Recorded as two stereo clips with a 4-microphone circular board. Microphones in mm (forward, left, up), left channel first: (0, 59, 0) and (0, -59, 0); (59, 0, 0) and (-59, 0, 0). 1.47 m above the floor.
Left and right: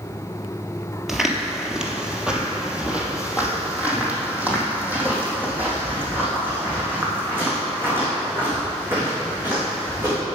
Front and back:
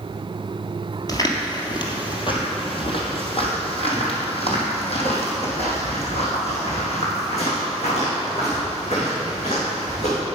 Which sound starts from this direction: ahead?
Footsteps, at 1.1 s.